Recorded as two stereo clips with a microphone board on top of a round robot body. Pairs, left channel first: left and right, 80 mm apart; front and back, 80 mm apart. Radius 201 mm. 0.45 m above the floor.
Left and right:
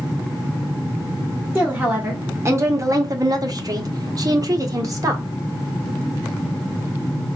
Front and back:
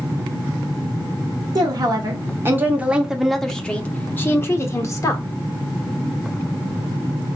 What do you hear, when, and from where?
1.6 s a woman speaking: 155° right, 1.3 m; by 5.2 s 45° right, 1.7 m